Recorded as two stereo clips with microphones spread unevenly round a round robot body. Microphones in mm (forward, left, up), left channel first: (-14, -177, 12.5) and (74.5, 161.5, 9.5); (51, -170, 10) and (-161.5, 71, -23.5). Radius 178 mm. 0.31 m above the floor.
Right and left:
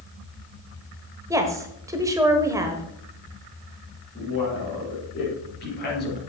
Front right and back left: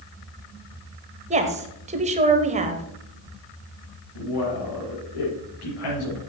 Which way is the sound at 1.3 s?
145° left.